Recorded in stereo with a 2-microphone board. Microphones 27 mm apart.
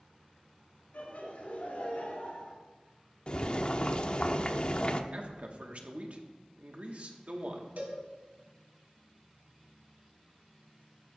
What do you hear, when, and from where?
0.9 s laughter: 70° left (ahead or behind), 3 m; by 2.5 s 65° left (ahead or behind), 3 m
3.3 s boiling: 35° left (ahead or behind), 0.7 m
5.1 s a man speaking: 55° right (ahead or behind), 1.6 m
7.8 s a cowbell: 80° right, 2.5 m